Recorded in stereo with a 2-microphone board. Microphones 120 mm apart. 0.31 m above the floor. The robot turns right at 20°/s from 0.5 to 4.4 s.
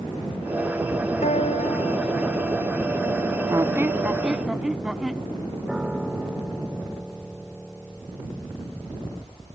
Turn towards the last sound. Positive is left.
turn(degrees=-10)  # may be behind; listen again after turning